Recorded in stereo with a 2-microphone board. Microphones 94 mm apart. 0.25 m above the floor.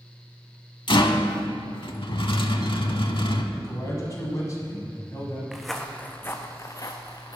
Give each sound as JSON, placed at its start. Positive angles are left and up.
{"t": 0.9, "sound": "a rattle", "side_deg": 60, "distance_m": 0.7}
{"t": 3.5, "sound": "a man speaking", "side_deg": 35, "distance_m": 1.8}
{"t": 5.5, "sound": "footsteps", "side_deg": -5, "distance_m": 0.9}